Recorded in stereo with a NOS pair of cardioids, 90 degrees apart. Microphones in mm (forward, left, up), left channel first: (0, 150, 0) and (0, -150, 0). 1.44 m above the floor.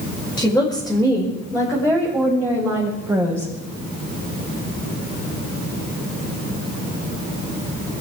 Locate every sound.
0.4 s a woman speaking: 5° left, 5 m; by 3.5 s 10° right, 5.5 m